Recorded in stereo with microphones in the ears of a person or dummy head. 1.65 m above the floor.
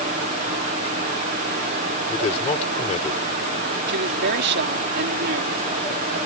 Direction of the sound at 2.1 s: 30° left (ahead or behind).